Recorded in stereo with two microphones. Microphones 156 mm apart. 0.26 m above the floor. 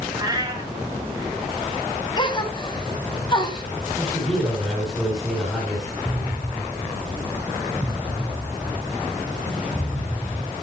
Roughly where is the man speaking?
Centre.